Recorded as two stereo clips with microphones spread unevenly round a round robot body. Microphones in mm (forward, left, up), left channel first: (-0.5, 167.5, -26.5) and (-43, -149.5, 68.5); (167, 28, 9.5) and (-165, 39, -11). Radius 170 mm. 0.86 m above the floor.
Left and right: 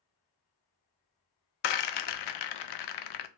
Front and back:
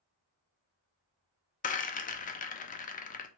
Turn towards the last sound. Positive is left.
turn(degrees=65)